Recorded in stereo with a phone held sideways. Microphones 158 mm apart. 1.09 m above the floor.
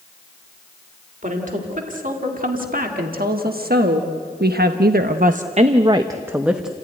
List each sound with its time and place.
1.2 s a woman speaking: 55° right (ahead or behind), 3 m; by 6.7 s centre (ahead or behind), 1.1 m